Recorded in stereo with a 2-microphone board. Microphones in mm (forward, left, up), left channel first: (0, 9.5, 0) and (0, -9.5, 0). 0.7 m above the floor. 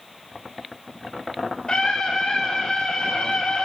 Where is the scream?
60° left (ahead or behind), 2.5 m; by 3.6 s 70° left (ahead or behind), 2.0 m.